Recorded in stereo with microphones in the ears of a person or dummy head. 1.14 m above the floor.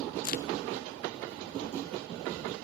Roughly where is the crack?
Left.